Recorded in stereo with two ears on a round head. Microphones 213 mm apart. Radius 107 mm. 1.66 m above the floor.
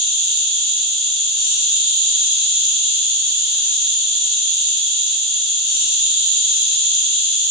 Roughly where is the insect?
Left.